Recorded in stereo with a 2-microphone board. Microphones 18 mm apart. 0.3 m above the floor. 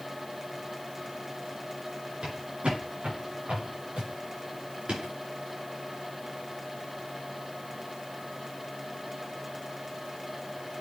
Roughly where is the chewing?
I don't hear chewing.